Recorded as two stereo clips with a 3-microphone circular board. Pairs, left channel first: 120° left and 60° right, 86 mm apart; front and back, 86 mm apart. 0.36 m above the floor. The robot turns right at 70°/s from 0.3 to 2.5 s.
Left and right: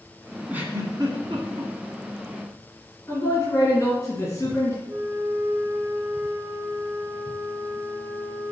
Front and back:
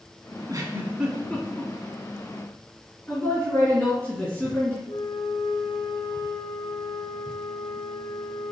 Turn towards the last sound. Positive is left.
turn(degrees=0)